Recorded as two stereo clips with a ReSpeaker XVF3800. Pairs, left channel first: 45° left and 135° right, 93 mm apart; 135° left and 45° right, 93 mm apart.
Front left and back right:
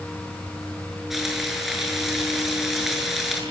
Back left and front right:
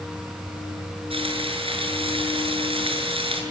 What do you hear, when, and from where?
1.1 s frying: 45° right, 7 m